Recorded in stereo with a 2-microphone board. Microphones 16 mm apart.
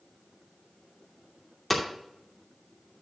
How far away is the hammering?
About 2.5 m.